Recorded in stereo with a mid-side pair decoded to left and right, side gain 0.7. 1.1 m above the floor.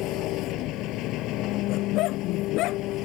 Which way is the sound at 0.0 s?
60° left.